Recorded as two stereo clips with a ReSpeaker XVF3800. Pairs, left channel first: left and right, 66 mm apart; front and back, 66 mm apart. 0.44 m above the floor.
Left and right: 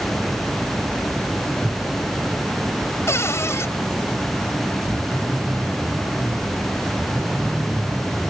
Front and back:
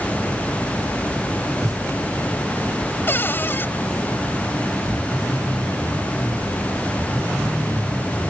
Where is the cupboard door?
55° left.